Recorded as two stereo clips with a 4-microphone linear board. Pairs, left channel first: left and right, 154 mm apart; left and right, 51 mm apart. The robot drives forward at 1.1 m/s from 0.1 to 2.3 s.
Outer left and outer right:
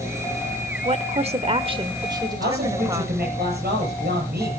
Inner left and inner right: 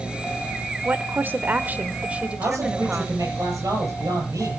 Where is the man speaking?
85° right, 9.5 m.